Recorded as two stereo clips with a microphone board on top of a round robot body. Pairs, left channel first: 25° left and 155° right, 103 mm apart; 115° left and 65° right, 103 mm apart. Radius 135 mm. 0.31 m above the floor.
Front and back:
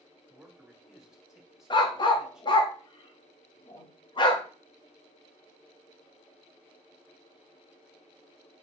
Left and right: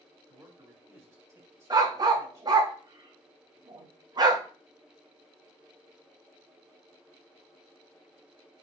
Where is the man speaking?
80° right, 1.7 m.